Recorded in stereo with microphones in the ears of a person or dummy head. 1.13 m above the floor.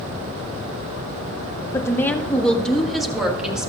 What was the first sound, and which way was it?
A woman speaking, 10° left (ahead or behind).